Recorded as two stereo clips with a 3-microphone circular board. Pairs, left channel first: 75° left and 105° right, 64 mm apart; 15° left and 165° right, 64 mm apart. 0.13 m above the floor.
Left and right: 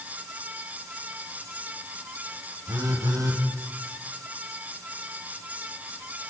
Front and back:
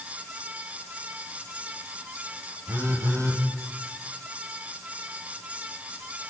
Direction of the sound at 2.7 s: 125° right.